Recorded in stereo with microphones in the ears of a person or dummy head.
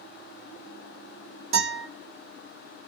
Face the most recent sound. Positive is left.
turn(degrees=-40)  # may be behind; listen again after turning